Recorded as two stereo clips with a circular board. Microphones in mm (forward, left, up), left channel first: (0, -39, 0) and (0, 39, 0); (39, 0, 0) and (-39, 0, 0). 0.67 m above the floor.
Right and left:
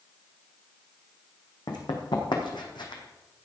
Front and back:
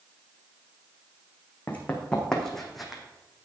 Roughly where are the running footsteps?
Right.